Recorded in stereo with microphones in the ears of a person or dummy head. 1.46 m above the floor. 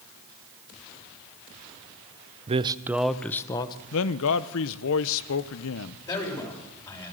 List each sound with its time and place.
2.5 s a man speaking: 40° right (ahead or behind), 0.8 m; by 3.8 s 25° left (ahead or behind), 1.3 m
3.9 s a man speaking: 75° left (ahead or behind), 0.9 m
6.1 s a man speaking: 20° left (ahead or behind), 7 m